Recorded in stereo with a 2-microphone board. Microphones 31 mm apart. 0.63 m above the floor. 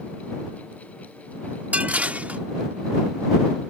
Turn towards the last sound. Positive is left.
turn(degrees=-50)  # may be behind; listen again after turning